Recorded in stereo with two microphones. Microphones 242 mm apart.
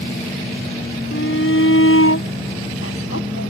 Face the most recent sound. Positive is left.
turn(degrees=70)  # may be behind; listen again after turning